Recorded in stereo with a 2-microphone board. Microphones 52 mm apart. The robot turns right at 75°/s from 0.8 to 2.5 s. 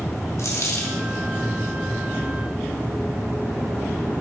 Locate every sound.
0.4 s a dropped coin: 65° left (ahead or behind), 2.5 m; by 1.0 s 55° left (ahead or behind), 2.5 m